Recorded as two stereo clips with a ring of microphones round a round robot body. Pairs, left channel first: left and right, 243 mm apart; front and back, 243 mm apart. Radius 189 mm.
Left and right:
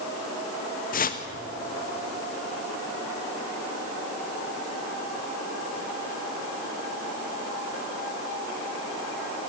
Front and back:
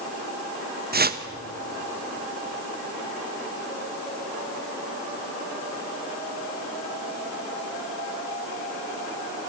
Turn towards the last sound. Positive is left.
turn(degrees=140)